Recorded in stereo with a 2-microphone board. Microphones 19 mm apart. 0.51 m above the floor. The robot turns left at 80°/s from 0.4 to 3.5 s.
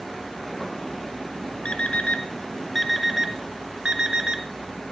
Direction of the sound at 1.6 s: 75° left (ahead or behind).